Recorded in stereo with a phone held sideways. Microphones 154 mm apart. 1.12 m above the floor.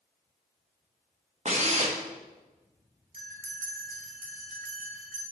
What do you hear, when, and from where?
1.4 s a drill: 50° right (ahead or behind), 1.5 m
3.1 s a bell: 65° right (ahead or behind), 3 m